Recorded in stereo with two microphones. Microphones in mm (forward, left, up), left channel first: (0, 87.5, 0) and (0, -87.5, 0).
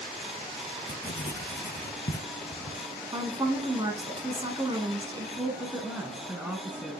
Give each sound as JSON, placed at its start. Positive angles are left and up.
{"t": 0.9, "sound": "writing", "side_deg": 75, "distance_m": 0.8}
{"t": 3.1, "sound": "a woman speaking", "side_deg": -25, "distance_m": 1.4}
{"t": 5.4, "sound": "a woman speaking", "side_deg": -5, "distance_m": 1.1}